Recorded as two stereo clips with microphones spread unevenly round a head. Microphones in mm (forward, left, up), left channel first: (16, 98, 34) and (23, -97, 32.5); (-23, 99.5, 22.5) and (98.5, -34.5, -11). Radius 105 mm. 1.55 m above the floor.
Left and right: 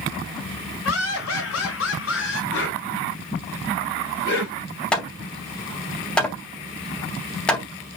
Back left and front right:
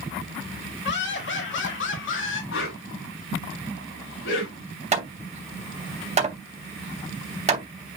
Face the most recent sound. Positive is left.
turn(degrees=5)